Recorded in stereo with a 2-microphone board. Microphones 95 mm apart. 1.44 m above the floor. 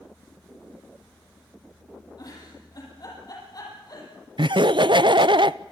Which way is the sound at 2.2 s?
45° left (ahead or behind).